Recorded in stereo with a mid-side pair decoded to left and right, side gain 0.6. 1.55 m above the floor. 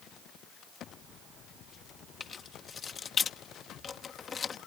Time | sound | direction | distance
2.2 | keys jangling | 35° left | ?